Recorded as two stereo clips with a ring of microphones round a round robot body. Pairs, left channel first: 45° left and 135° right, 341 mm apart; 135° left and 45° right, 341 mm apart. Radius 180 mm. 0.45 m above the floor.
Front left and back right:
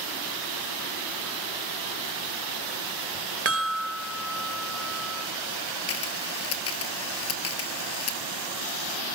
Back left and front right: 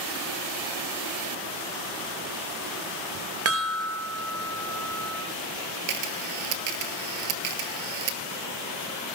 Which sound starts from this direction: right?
A chime, at 3.5 s.